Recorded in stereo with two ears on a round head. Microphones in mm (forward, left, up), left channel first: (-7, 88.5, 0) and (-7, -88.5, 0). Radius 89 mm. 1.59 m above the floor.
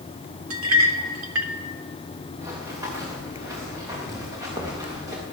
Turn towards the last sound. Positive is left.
turn(degrees=-15)  # may be behind; listen again after turning